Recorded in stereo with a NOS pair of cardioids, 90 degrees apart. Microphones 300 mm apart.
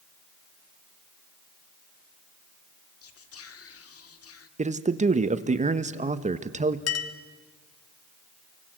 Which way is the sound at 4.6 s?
25° right.